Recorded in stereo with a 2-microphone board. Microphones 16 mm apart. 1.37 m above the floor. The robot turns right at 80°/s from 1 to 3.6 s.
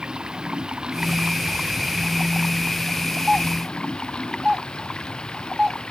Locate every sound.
0.0 s running water: 115° right; by 5.9 s 95° left
3.3 s a doorbell: 20° right (ahead or behind); by 5.8 s 45° right (ahead or behind)